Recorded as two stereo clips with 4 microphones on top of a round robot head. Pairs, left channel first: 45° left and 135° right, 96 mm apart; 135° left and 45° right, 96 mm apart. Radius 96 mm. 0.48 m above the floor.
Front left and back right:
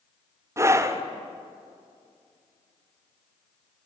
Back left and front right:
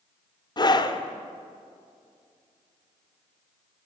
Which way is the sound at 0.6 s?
170° left.